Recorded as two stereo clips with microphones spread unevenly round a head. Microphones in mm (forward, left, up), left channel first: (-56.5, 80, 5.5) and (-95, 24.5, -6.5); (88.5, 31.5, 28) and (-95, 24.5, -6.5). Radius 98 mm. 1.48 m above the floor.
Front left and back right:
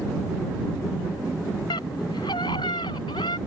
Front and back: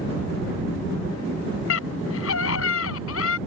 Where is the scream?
10° left; by 3.4 s 5° left.